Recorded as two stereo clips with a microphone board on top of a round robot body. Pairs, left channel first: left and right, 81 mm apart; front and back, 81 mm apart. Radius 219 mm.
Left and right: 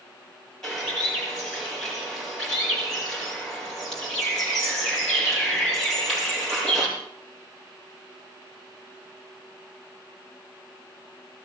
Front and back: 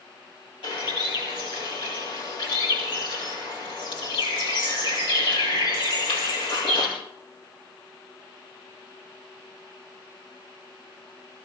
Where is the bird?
5° left, 7.5 m.